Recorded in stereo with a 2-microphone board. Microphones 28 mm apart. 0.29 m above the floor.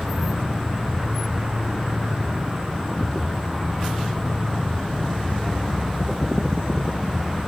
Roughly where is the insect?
Right.